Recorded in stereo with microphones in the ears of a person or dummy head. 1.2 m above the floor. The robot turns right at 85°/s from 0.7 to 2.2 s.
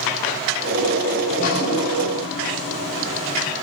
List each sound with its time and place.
1.2 s dripping: 30° left, 0.9 m; by 3.5 s 115° left, 0.9 m